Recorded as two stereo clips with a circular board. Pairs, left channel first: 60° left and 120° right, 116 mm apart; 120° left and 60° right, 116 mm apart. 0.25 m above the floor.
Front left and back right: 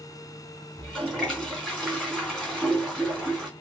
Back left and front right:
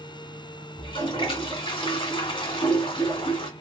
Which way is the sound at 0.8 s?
140° left.